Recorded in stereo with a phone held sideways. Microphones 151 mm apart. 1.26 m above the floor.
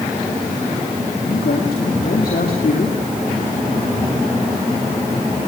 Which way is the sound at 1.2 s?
85° left.